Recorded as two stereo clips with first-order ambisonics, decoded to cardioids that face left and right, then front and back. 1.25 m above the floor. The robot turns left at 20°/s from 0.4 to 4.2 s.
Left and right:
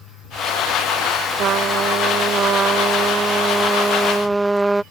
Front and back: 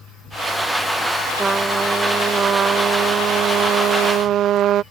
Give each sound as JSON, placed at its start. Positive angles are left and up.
{"t": 1.4, "sound": "a trumpet", "azimuth_deg": -115}